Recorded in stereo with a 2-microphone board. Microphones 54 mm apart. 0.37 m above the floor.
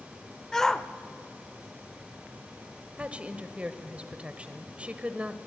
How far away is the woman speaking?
About 1.3 m.